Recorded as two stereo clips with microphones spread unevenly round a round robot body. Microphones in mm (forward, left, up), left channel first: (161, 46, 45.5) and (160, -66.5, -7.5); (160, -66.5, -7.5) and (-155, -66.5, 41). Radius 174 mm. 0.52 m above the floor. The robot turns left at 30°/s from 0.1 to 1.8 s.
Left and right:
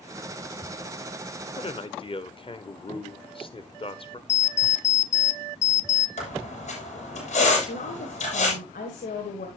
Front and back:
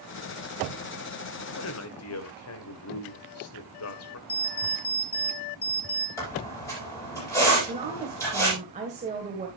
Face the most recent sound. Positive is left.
turn(degrees=105)